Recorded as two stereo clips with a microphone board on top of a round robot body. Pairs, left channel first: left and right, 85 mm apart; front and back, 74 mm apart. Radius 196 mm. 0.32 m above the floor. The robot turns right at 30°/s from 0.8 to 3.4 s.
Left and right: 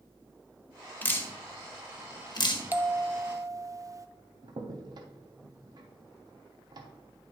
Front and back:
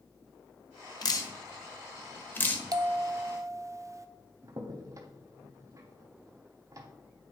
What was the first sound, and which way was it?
Dripping, 20° left.